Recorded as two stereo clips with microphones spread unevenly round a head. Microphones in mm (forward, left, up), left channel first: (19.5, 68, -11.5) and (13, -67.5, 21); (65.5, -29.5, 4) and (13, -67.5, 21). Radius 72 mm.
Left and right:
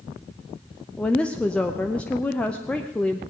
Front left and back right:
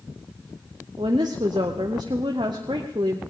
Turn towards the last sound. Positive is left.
turn(degrees=175)